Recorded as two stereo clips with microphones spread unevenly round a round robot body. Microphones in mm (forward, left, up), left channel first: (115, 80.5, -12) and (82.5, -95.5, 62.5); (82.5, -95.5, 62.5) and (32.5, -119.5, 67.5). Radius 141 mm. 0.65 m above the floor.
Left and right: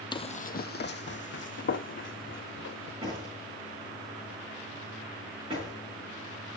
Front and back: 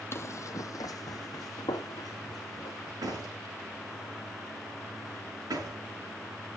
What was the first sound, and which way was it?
Running footsteps, 5° right.